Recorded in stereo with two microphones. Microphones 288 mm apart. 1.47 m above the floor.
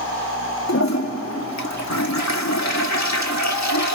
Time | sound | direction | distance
0.7 | a toilet flushing | 65° left (ahead or behind) | 1.8 m